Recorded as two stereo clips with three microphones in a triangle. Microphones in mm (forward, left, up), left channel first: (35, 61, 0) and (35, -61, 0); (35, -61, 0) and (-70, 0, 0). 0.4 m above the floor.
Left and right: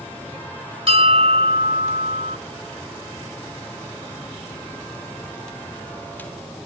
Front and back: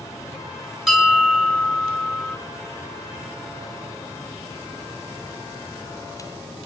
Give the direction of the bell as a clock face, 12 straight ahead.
4 o'clock.